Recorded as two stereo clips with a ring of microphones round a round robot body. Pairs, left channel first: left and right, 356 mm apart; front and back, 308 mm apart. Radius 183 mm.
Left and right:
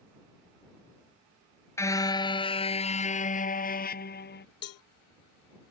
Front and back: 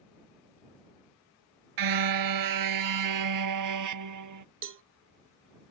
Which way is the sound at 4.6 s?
135° left.